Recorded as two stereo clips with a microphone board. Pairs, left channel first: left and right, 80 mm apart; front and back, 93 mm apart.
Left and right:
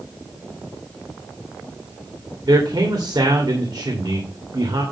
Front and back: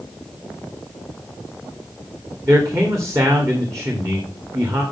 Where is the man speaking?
125° right, 2.5 m.